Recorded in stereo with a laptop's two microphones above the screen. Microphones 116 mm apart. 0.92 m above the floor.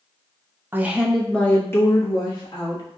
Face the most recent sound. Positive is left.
turn(degrees=40)  # may be behind; listen again after turning